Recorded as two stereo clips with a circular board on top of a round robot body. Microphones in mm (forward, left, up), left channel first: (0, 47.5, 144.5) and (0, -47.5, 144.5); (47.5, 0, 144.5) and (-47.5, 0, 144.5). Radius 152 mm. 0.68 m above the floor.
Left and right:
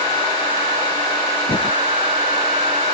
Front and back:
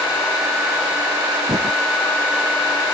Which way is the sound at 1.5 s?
130° left.